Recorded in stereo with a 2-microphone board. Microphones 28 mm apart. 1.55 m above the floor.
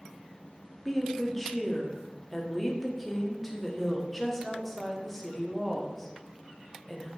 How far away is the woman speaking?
About 0.6 m.